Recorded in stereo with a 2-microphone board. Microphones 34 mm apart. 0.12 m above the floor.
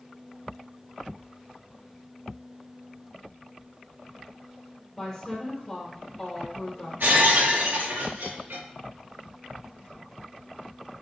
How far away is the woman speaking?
About 3.5 m.